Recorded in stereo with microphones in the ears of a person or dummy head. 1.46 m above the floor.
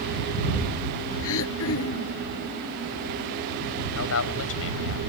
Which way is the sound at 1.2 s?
65° left (ahead or behind).